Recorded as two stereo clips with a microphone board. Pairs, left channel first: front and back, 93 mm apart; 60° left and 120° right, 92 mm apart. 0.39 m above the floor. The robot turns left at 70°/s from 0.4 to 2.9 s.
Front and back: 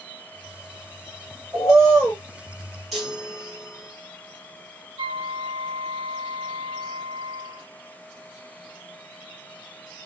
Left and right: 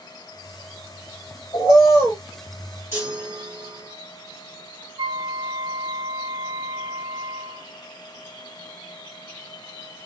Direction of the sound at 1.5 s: 95° left.